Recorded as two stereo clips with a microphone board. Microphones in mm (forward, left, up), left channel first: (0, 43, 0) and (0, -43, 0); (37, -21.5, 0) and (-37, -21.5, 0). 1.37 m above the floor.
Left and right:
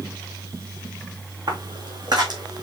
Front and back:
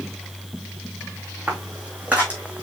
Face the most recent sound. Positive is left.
turn(degrees=-115)